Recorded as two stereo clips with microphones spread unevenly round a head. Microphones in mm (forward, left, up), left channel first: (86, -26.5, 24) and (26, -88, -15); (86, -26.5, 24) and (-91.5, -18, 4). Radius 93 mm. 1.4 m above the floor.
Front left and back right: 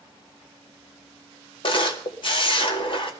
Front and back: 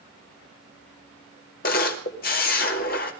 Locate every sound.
1.6 s a camera shutter: 40° left, 2.0 m